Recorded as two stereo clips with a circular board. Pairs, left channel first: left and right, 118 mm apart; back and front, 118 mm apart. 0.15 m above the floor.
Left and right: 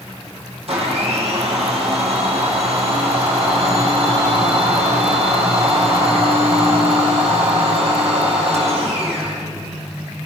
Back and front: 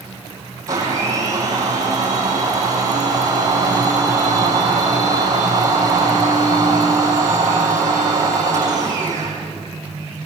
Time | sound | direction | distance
0.7 | a blender | 60° right | 7 m